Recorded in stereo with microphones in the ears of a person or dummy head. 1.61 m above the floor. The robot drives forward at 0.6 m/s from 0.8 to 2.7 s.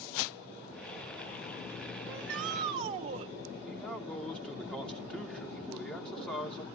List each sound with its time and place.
2.0 s a shout: 50° right (ahead or behind), 0.8 m; by 3.3 s 40° right (ahead or behind), 1.0 m
3.7 s a man speaking: 5° left (ahead or behind), 2.5 m